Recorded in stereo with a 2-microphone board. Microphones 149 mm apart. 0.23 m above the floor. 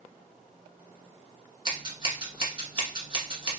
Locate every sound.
1.6 s scissors: 35° right (ahead or behind), 1.4 m